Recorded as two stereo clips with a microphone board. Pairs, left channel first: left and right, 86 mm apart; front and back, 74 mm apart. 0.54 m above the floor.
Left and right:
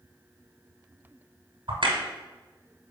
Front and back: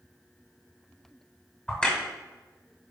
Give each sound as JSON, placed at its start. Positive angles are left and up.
{"t": 1.7, "sound": "a crack", "azimuth_deg": -80, "distance_m": 1.9}